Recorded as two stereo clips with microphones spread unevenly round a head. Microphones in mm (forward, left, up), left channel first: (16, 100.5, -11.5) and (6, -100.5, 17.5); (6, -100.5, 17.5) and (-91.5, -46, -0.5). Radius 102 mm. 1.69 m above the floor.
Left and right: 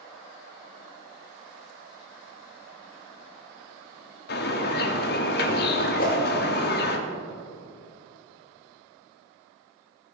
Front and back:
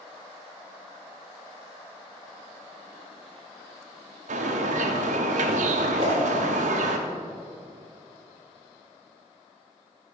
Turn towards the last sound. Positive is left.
turn(degrees=110)